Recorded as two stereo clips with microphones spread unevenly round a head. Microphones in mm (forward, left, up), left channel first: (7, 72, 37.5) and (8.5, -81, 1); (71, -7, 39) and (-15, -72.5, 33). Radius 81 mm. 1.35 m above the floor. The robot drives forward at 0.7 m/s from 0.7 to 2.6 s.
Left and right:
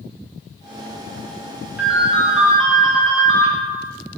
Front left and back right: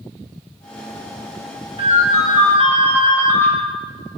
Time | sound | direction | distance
1.8 | a ringtone | 170° left | 1.0 m